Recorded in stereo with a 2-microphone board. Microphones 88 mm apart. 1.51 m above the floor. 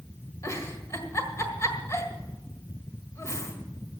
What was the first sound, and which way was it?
A giggle, 35° left (ahead or behind).